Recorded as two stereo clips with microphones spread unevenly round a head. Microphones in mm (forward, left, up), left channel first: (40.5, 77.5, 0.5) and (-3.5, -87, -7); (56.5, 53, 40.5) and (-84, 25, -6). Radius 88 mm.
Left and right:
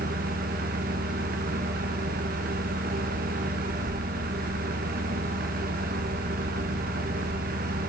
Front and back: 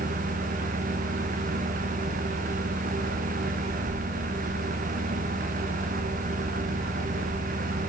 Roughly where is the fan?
Behind right.